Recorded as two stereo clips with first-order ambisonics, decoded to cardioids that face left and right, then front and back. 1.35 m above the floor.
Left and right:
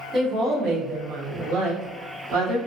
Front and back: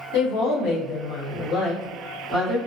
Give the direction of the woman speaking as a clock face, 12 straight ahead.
1 o'clock.